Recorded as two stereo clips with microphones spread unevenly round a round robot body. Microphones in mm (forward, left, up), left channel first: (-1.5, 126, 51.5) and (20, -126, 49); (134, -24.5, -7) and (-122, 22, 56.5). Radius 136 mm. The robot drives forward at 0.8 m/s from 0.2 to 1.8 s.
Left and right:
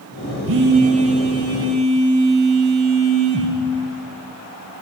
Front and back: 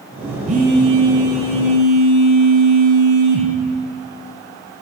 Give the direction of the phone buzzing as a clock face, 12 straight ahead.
4 o'clock.